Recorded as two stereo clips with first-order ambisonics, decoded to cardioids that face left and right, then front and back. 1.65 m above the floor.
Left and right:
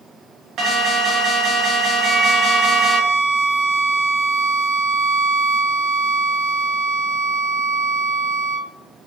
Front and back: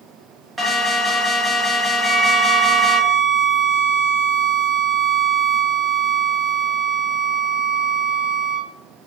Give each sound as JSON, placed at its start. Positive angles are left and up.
{"t": 0.6, "sound": "an alarm", "azimuth_deg": -110, "distance_m": 0.6}
{"t": 2.0, "sound": "a violin", "azimuth_deg": -110, "distance_m": 1.1}